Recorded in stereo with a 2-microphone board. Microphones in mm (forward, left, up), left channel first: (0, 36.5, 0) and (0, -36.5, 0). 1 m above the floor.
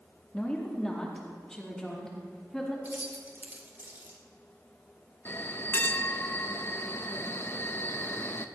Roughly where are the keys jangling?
Right.